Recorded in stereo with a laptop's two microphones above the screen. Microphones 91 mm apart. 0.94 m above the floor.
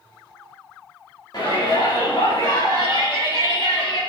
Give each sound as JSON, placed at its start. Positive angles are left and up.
{"t": 1.3, "sound": "a shout", "side_deg": 50, "distance_m": 2.5}